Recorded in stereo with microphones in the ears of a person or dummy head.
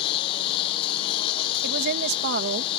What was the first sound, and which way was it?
A lawn mower, 30° left (ahead or behind).